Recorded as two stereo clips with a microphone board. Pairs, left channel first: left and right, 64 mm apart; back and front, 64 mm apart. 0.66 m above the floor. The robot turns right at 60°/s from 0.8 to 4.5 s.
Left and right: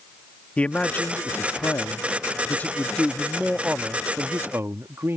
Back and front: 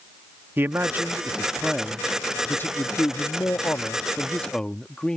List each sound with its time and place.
0.6 s a man speaking: 30° left; by 5.2 s 105° right